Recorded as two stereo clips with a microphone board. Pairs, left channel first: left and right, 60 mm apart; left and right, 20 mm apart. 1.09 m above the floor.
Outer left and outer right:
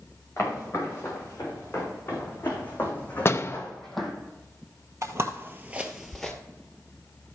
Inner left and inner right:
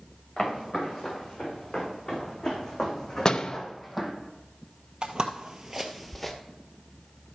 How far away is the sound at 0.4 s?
About 6.5 m.